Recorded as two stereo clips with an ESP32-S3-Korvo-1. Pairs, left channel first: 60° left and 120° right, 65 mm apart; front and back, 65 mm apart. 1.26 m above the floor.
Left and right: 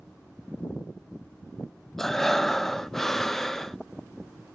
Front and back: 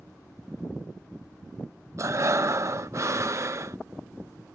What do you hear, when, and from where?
2.0 s breathing: 145° left